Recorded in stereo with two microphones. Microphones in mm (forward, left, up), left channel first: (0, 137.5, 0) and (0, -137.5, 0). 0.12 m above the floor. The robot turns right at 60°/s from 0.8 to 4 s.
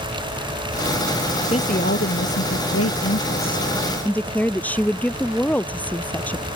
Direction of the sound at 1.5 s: 25° left.